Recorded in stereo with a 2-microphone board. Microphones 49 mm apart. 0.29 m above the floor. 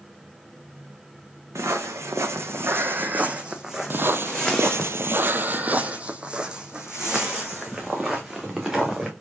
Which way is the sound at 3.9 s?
45° right (ahead or behind).